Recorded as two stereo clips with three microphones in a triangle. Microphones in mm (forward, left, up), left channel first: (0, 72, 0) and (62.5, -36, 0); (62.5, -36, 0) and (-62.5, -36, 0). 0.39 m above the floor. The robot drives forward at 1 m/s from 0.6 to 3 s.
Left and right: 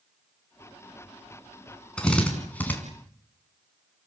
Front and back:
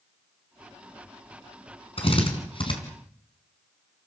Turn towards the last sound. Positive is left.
turn(degrees=50)